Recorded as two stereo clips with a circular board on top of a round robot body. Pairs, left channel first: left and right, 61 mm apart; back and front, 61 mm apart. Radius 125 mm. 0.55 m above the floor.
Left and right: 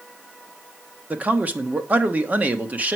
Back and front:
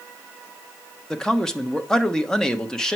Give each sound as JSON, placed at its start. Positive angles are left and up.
{"t": 1.1, "sound": "a man speaking", "azimuth_deg": -110, "distance_m": 1.2}